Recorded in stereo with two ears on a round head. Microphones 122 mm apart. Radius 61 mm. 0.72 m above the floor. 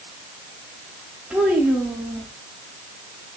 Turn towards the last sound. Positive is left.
turn(degrees=-5)  # may be behind; listen again after turning